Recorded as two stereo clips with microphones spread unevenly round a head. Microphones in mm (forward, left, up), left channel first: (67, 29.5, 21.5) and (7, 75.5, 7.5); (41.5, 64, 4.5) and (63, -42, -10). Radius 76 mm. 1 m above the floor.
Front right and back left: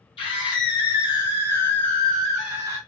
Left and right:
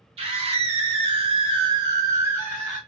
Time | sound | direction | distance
0.2 | a scream | 65° right | 1.3 m